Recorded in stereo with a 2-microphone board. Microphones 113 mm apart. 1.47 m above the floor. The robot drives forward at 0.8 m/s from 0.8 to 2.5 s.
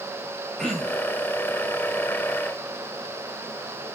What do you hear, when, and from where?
0.6 s throat clearing: centre (ahead or behind), 4.5 m